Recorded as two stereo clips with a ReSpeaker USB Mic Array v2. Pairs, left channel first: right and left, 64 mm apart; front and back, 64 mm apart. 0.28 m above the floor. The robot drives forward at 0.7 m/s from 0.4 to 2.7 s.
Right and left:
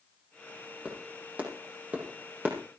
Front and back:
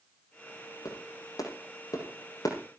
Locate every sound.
0.8 s a clap: 25° left, 8 m